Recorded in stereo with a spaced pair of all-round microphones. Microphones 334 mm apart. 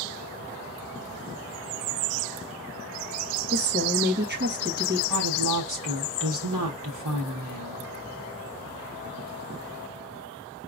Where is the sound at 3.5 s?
30° right (ahead or behind), 1.3 m.